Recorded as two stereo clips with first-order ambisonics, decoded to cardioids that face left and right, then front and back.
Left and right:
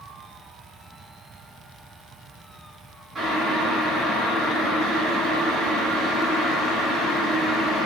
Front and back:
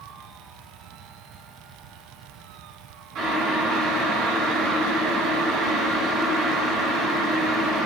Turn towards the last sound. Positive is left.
turn(degrees=-165)